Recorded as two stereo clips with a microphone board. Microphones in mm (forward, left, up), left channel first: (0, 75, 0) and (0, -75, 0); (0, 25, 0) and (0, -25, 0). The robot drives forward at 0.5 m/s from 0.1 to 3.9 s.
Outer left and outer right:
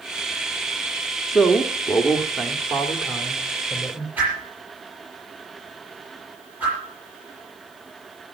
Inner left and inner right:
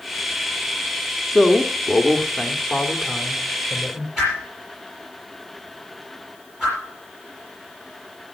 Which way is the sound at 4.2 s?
10° right (ahead or behind).